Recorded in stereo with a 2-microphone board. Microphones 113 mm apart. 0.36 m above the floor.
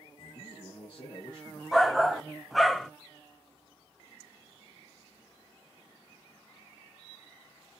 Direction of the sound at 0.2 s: 45° left (ahead or behind).